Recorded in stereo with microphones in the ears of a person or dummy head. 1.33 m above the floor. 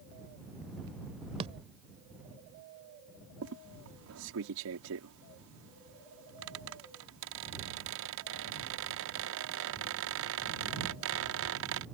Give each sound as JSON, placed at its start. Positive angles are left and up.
{"t": 1.4, "sound": "a thud", "side_deg": -30}
{"t": 3.4, "sound": "a squeak", "side_deg": -75}